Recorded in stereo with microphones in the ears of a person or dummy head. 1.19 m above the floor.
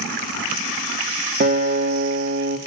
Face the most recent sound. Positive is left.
turn(degrees=-45)  # may be behind; listen again after turning